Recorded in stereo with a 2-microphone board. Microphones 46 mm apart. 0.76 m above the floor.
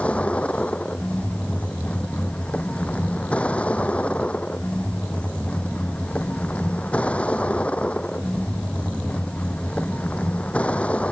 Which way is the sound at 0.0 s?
30° left (ahead or behind).